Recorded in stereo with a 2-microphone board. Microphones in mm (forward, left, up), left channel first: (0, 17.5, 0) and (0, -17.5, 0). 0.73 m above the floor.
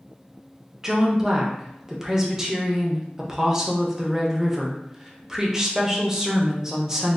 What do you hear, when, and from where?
0.8 s a woman speaking: 15° right (ahead or behind), 0.6 m